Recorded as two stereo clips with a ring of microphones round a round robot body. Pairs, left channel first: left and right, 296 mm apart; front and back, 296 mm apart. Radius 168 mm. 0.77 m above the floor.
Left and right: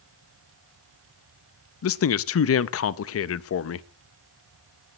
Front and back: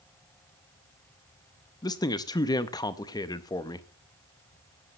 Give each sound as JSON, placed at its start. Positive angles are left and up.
{"t": 1.8, "sound": "a man speaking", "azimuth_deg": 75, "distance_m": 0.6}